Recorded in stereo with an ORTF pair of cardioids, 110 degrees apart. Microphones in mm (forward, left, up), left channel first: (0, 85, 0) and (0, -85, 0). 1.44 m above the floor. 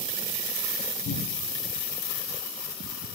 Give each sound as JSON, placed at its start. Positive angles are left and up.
{"t": 1.1, "sound": "a cupboard door", "azimuth_deg": 60, "distance_m": 9.5}